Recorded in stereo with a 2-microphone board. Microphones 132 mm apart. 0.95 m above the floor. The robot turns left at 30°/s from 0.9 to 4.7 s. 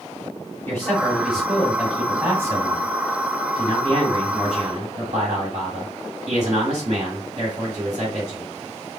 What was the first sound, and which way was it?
A man speaking, 20° left.